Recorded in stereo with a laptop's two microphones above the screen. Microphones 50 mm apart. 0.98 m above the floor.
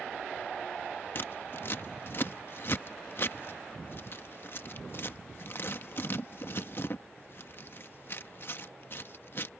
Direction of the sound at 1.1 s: 50° left (ahead or behind).